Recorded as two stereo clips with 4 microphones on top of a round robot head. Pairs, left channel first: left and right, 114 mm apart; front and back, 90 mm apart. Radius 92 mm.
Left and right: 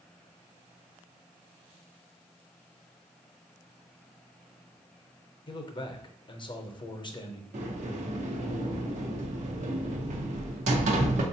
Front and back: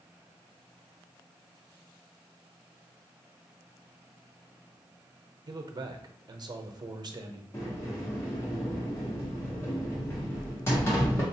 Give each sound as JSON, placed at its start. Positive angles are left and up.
{"t": 5.5, "sound": "a man speaking", "azimuth_deg": 135, "distance_m": 0.7}
{"t": 7.5, "sound": "a sliding door", "azimuth_deg": -70, "distance_m": 0.7}